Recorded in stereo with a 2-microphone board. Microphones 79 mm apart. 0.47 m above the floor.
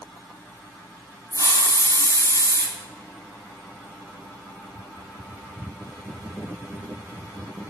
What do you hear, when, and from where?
1.3 s a hiss: 40° left (ahead or behind), 1.5 m